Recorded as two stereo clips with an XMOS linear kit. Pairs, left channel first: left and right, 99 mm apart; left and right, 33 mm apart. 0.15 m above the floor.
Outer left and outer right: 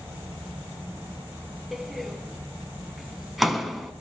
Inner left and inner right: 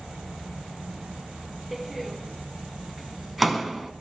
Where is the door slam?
Centre (ahead or behind), 0.8 m.